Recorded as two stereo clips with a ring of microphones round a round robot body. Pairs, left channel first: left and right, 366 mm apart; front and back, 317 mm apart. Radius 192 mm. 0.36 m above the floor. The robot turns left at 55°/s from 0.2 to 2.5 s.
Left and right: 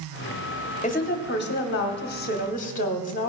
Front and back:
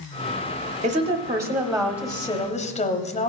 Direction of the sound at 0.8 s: 140° left.